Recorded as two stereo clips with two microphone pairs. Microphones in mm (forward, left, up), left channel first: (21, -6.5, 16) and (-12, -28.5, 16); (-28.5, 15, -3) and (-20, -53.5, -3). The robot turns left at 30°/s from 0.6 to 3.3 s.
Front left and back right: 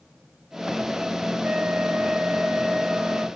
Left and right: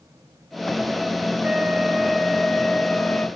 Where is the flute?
135° right, 1.5 m; by 3.3 s 170° left, 1.5 m.